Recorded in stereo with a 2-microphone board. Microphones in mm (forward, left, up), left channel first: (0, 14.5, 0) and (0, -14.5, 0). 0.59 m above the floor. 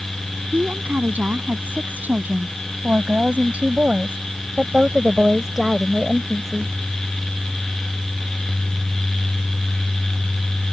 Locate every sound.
0.5 s a woman speaking: 80° right; by 6.7 s 5° left (ahead or behind)